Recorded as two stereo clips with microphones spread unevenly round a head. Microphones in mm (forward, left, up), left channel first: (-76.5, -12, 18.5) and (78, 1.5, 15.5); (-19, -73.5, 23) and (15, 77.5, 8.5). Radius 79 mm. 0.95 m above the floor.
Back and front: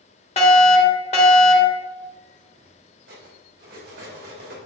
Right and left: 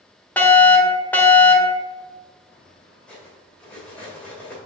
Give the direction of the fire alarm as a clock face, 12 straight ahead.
6 o'clock.